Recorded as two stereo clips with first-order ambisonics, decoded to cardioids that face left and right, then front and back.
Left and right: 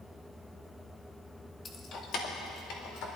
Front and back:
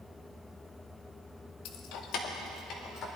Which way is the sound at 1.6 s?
20° left.